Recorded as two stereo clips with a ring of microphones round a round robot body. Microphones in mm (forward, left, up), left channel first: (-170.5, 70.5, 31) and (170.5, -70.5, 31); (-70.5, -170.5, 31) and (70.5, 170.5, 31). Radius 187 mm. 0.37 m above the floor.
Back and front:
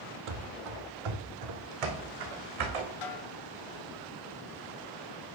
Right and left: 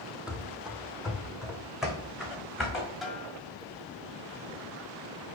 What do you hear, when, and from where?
0.3 s running footsteps: 20° right, 0.9 m
3.0 s a snare drum: 160° left, 1.6 m